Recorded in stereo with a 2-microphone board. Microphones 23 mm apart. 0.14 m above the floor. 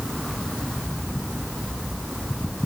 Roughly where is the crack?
I don't hear a crack.